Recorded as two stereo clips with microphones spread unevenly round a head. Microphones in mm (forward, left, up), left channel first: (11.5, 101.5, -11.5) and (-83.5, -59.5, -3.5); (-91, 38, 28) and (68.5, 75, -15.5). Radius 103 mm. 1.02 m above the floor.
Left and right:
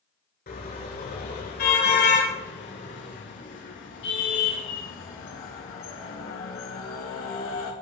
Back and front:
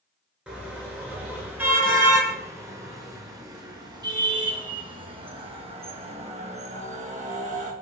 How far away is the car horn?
About 6 m.